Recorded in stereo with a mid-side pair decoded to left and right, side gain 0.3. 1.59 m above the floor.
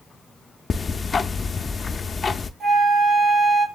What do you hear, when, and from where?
0.7 s ticking: 45° left, 0.5 m
2.6 s a flute: 45° right, 3.5 m